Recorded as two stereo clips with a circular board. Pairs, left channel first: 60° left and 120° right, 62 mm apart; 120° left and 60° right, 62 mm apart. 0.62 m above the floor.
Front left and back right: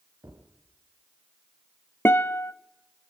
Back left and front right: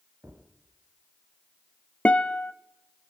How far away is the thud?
About 5.5 m.